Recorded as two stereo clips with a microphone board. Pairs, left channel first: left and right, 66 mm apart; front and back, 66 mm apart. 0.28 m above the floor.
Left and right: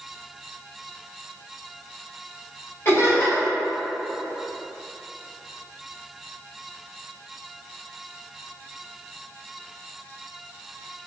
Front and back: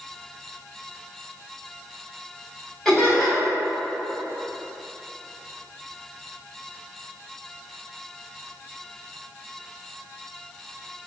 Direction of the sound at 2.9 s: 85° left.